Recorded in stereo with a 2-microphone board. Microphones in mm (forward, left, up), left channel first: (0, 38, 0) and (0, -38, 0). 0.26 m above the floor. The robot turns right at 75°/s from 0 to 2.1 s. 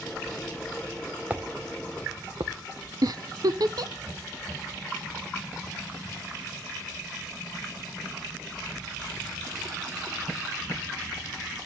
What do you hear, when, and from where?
1.3 s footsteps: 20° right (ahead or behind), 1.7 m; by 2.5 s 70° right (ahead or behind), 1.9 m
3.0 s a giggle: 65° right (ahead or behind), 0.6 m